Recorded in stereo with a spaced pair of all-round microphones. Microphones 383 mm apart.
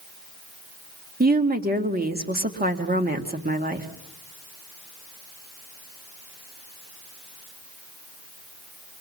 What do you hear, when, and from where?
1.2 s a woman speaking: 25° right (ahead or behind), 1.7 m